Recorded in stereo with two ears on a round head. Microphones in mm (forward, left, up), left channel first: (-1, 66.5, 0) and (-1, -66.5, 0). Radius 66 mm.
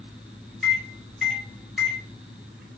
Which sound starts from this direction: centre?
A microwave, at 0.6 s.